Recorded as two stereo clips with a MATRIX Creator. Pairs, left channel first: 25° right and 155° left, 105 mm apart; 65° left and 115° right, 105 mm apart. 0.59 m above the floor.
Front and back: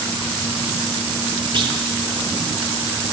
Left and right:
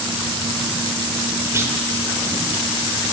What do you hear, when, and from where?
1.5 s a clunk: 175° right, 1.5 m